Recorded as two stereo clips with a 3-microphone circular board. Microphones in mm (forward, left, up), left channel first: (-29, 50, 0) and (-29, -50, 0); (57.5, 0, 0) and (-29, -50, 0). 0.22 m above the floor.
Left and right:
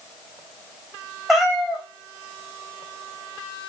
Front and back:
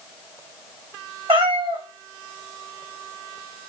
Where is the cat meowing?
Straight behind, 1.5 m.